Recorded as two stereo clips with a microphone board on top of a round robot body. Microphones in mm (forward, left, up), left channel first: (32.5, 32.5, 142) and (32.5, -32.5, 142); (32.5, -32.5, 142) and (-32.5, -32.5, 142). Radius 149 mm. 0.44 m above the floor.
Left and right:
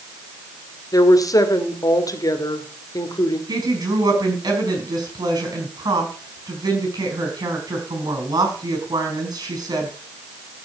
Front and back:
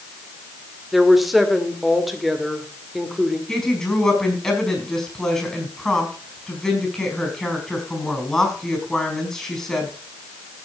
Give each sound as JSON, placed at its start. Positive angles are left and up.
{"t": 0.9, "sound": "a woman speaking", "azimuth_deg": 90, "distance_m": 2.0}
{"t": 3.5, "sound": "a woman speaking", "azimuth_deg": -85, "distance_m": 5.5}